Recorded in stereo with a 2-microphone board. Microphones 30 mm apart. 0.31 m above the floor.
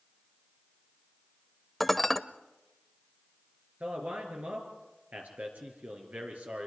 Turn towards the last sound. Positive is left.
turn(degrees=-60)  # may be behind; listen again after turning